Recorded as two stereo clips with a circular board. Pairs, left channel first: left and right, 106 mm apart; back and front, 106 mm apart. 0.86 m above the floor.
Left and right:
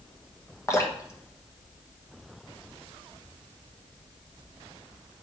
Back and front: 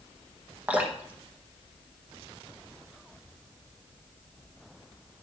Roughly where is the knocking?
No knocking in this recording.